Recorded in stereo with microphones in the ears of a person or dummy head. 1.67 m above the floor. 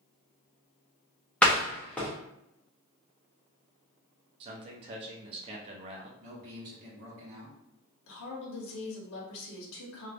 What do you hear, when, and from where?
1.4 s a door slam: 5° left (ahead or behind), 0.5 m
4.4 s a man speaking: 35° right (ahead or behind), 0.6 m
6.2 s a man speaking: 50° right (ahead or behind), 1.2 m
8.1 s a woman speaking: 70° left (ahead or behind), 1.0 m